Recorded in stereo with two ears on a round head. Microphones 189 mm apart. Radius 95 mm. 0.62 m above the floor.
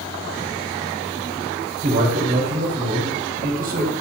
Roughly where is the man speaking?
Right.